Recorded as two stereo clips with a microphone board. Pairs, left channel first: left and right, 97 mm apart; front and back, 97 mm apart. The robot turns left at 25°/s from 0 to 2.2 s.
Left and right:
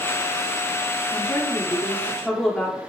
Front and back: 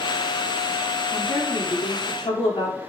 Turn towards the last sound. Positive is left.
turn(degrees=5)